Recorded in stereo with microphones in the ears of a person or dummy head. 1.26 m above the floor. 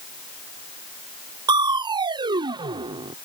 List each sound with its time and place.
1.5 s crushing: 20° right (ahead or behind)